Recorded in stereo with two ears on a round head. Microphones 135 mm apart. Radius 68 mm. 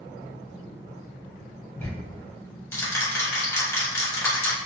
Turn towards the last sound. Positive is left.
turn(degrees=20)  # may be behind; listen again after turning